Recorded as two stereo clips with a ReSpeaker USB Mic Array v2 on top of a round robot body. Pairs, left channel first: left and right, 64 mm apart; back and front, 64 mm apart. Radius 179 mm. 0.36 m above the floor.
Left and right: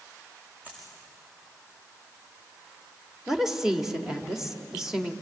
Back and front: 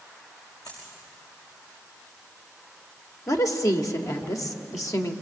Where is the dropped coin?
160° right, 7 m.